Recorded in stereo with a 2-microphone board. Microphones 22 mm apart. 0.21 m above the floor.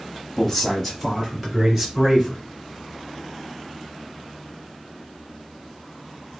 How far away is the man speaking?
About 1.2 m.